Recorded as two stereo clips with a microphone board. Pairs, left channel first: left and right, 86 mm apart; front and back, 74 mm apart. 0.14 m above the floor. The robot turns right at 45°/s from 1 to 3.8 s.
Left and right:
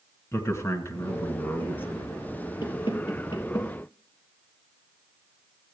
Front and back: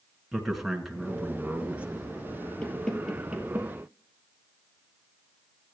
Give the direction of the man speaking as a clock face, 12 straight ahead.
9 o'clock.